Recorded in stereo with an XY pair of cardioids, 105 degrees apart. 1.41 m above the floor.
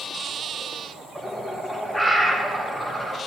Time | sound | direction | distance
1.1 | a bird | 5° left | 1.1 m